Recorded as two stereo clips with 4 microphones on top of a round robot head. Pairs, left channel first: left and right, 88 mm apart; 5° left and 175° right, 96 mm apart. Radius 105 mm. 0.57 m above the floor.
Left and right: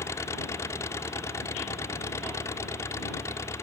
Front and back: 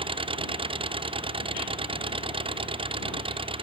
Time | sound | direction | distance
0.0 | an engine running | 155° left | ?